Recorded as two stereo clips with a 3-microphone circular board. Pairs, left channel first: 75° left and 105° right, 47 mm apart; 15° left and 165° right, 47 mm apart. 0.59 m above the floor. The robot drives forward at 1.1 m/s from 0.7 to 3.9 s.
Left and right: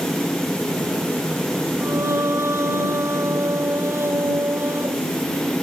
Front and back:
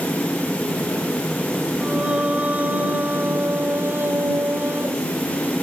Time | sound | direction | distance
1.8 | singing | 95° right | ?